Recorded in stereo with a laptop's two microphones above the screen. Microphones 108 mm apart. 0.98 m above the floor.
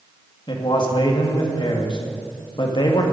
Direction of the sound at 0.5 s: 45° left (ahead or behind).